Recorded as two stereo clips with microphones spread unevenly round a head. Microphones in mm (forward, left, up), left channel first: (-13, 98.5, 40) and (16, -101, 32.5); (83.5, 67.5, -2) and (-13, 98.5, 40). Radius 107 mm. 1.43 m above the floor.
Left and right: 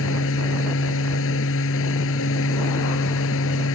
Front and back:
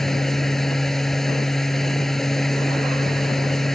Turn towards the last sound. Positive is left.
turn(degrees=75)